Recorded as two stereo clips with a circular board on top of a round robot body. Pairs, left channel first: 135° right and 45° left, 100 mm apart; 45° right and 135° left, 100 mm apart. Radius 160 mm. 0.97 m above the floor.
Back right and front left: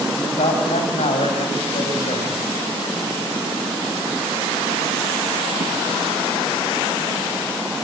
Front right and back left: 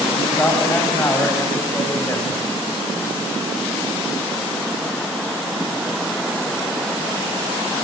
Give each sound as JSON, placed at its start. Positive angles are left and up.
{"t": 0.2, "sound": "a man speaking", "azimuth_deg": -115, "distance_m": 7.0}